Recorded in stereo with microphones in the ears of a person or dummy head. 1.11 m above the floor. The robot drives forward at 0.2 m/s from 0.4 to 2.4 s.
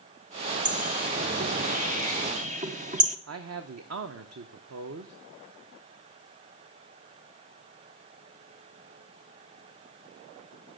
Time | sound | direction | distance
0.7 | a bird | 35° right (ahead or behind) | 0.6 m
3.3 | a man speaking | 70° right (ahead or behind) | 0.7 m